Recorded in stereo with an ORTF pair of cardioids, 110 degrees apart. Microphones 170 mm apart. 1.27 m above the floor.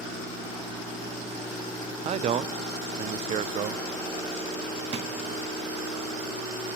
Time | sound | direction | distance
2.0 | a man speaking | 40° right | 0.5 m
4.9 | a drawer | 40° right | 1.2 m